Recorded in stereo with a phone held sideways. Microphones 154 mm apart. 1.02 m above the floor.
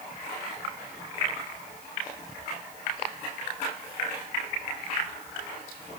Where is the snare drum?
I don't hear a snare drum.